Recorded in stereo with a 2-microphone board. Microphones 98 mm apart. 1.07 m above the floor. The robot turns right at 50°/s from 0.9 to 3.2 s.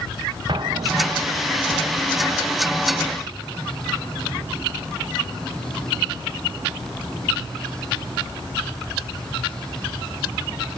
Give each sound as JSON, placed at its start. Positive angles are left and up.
{"t": 0.5, "sound": "an explosion", "azimuth_deg": -125, "distance_m": 0.6}